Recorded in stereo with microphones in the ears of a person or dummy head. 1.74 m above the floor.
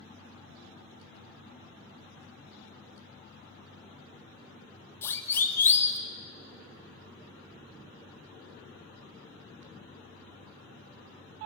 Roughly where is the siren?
Centre.